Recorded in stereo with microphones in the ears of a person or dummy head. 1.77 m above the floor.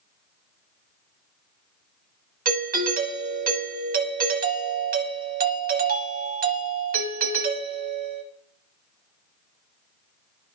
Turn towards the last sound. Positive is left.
turn(degrees=-45)  # may be behind; listen again after turning